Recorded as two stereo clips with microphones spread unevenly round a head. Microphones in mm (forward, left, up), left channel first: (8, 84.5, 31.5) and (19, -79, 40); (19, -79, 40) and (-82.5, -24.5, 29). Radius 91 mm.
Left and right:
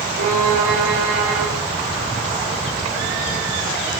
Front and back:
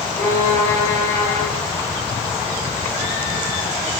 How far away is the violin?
About 5.5 m.